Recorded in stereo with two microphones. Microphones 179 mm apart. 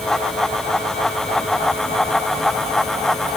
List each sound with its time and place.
Only background noise.